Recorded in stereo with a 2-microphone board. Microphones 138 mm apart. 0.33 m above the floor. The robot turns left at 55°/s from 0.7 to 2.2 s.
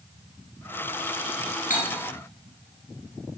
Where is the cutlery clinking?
80° left, 3 m.